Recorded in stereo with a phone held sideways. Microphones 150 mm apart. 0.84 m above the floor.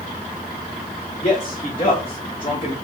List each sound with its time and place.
1.2 s a man speaking: 45° left (ahead or behind), 1.4 m; by 2.8 s 30° left (ahead or behind), 1.0 m